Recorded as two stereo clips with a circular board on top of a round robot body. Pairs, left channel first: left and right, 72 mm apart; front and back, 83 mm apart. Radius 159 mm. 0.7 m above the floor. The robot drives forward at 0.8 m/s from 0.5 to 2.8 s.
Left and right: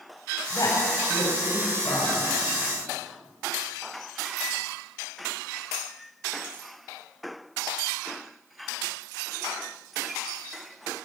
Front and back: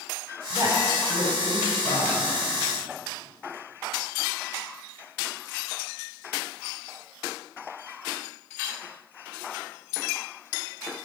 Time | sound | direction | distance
0.5 | a woman speaking | 130° left | 4.5 m